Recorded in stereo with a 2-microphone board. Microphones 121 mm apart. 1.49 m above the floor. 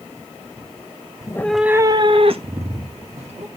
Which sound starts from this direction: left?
A cat meowing, at 1.2 s.